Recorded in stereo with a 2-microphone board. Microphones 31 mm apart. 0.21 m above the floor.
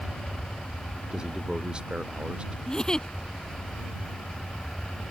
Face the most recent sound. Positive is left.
turn(degrees=25)  # may be behind; listen again after turning